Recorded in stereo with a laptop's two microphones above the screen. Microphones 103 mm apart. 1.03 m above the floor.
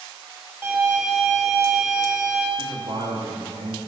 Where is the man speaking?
80° right, 1.5 m.